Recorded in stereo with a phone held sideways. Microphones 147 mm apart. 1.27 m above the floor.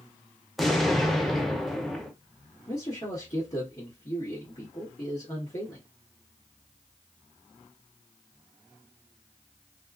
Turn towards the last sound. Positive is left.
turn(degrees=45)  # may be behind; listen again after turning